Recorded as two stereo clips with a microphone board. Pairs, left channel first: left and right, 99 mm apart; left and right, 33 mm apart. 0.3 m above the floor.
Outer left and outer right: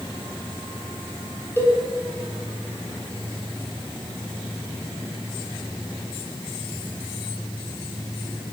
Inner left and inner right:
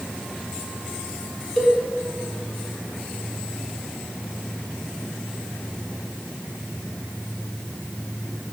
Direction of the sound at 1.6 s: 25° left (ahead or behind).